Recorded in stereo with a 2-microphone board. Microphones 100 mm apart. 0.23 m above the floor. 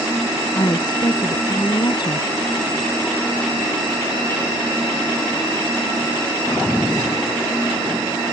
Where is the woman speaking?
45° left (ahead or behind).